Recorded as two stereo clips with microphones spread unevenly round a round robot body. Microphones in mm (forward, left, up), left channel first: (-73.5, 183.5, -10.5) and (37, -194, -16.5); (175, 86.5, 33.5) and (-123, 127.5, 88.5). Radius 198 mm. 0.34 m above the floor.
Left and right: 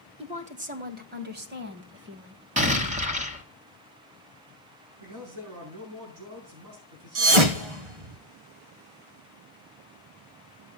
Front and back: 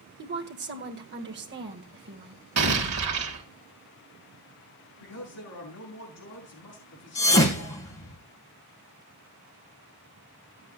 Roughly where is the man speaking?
Ahead right.